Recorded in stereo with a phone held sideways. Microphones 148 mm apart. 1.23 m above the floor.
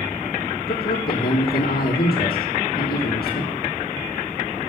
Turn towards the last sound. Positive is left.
turn(degrees=75)  # may be behind; listen again after turning